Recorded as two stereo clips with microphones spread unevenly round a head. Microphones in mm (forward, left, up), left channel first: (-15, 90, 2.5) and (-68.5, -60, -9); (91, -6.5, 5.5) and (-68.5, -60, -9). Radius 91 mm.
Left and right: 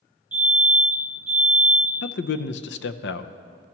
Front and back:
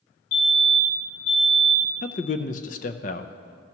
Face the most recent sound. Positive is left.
turn(degrees=70)